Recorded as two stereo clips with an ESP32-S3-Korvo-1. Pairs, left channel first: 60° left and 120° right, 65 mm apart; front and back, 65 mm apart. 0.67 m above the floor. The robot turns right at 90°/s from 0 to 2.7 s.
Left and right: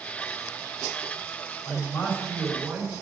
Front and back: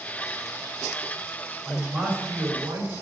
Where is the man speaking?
70° left, 3.5 m; by 2.9 s 165° left, 3.5 m.